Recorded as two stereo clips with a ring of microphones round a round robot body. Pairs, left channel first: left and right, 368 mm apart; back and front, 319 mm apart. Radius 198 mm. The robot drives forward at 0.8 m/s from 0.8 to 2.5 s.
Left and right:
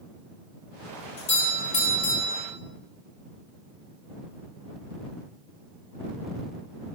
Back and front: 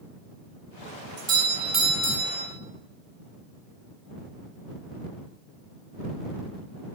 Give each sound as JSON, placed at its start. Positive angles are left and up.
{"t": 1.2, "sound": "a doorbell", "azimuth_deg": 20, "distance_m": 2.5}